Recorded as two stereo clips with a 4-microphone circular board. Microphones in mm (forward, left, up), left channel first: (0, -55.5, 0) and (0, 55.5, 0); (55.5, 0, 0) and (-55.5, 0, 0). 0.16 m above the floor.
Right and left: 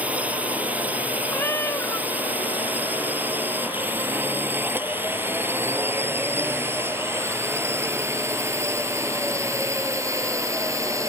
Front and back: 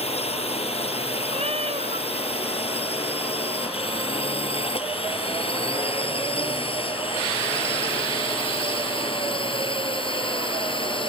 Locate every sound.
0.0 s a drone: 15° left; by 11.1 s 30° left
1.3 s a cat meowing: 155° right